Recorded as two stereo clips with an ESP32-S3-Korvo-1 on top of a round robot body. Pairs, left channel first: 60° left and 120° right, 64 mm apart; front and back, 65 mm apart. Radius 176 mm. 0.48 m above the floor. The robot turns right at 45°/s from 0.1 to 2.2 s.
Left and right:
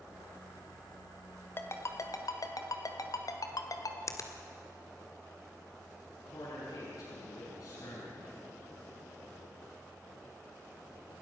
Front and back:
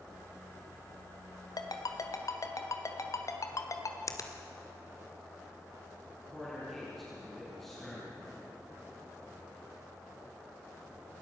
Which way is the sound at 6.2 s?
85° left.